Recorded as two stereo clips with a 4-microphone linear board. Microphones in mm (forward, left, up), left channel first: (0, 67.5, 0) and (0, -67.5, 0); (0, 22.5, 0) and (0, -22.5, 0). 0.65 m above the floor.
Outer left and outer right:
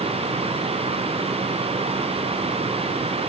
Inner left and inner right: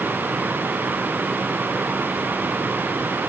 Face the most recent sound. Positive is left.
No sound to turn to.